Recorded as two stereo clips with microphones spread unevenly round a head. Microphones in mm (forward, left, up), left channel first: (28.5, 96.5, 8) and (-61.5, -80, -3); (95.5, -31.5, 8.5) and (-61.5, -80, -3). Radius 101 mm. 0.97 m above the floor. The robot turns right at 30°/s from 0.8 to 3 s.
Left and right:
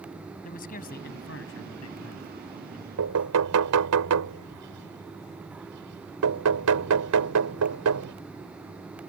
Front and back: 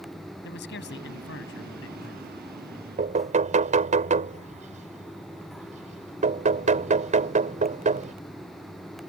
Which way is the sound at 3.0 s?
120° right.